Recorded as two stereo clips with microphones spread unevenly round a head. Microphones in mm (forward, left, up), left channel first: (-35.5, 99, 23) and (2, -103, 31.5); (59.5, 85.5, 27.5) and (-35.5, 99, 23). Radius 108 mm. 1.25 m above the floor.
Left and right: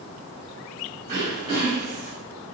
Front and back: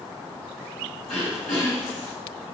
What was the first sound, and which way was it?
Throat clearing, 35° right.